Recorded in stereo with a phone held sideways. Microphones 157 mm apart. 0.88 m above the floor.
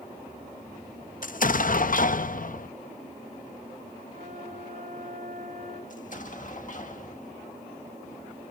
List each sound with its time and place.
1.2 s an explosion: 60° left (ahead or behind), 0.6 m
4.1 s a flute: 55° right (ahead or behind), 6.5 m
5.9 s an explosion: 55° left (ahead or behind), 1.7 m